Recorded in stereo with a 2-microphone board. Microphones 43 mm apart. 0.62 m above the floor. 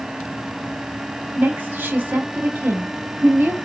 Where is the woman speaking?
50° right (ahead or behind), 0.9 m.